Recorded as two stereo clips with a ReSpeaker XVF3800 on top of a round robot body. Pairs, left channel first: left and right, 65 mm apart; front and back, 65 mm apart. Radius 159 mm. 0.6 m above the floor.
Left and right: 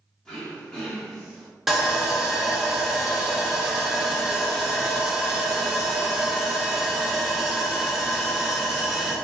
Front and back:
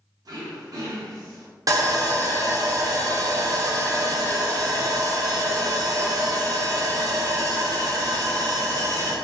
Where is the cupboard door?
No cupboard door in this recording.